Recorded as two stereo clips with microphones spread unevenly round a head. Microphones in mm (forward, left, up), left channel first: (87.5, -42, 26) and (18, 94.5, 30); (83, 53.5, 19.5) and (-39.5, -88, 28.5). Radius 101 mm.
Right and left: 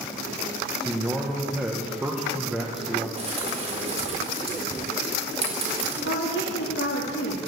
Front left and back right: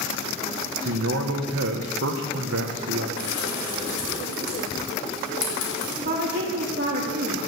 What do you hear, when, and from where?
0.8 s a man speaking: 160° right, 1.1 m
3.2 s a bird: 70° left, 4.5 m
6.0 s a woman speaking: 90° right, 1.7 m